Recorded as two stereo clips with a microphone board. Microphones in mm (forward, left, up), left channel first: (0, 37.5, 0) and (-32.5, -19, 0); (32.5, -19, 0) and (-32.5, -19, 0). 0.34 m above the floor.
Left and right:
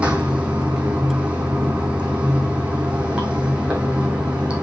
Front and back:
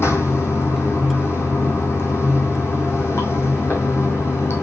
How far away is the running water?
About 2 m.